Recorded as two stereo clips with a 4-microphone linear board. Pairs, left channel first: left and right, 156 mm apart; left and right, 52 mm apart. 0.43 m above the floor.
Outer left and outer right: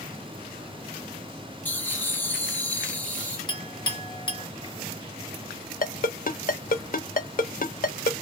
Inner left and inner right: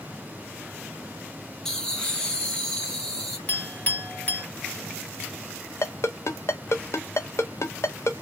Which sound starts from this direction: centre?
Laughter, at 1.6 s.